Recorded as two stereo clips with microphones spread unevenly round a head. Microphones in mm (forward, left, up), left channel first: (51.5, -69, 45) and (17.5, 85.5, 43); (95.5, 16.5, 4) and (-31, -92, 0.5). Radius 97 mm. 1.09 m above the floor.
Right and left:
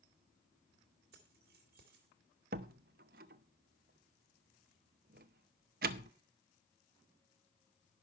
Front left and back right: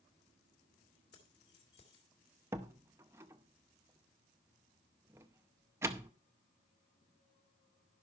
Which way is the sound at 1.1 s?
85° left.